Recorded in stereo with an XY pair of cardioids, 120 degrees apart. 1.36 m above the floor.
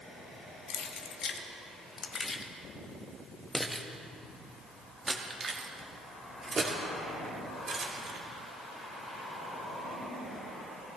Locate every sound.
0.7 s keys jangling: 60° left, 1.6 m; by 8.2 s 50° right, 3 m